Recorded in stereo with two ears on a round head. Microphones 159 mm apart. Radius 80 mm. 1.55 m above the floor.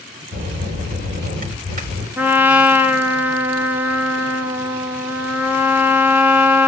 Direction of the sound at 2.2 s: 10° right (ahead or behind).